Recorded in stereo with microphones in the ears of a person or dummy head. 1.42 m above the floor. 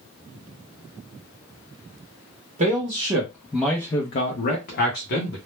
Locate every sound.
2.6 s a man speaking: 40° right (ahead or behind), 0.8 m; by 5.4 s 65° left (ahead or behind), 0.9 m